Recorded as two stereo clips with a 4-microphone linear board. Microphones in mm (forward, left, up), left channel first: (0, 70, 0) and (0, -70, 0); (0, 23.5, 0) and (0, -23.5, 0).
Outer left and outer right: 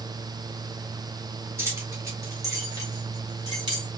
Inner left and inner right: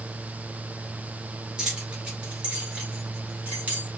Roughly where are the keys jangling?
Centre.